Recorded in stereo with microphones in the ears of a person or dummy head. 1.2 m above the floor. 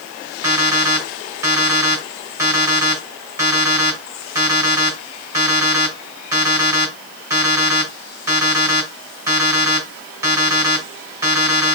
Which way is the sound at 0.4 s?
20° right (ahead or behind).